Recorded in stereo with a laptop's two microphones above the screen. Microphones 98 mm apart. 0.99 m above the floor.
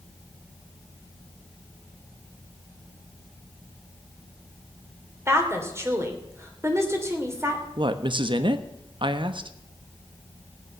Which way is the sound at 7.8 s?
55° right (ahead or behind).